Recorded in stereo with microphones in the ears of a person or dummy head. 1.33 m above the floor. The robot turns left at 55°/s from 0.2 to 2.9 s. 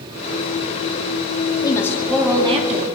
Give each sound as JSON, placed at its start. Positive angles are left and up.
{"t": 1.6, "sound": "a woman speaking", "azimuth_deg": 25, "distance_m": 2.5}